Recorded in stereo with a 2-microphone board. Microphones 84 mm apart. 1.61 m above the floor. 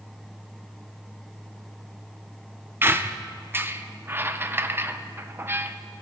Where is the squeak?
25° right (ahead or behind), 0.6 m.